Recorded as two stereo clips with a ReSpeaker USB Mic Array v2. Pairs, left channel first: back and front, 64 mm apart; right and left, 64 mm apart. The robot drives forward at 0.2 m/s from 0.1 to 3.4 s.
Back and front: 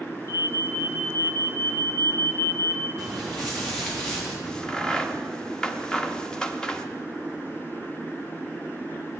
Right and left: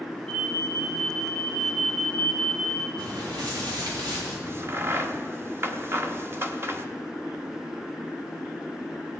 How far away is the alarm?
About 1.7 m.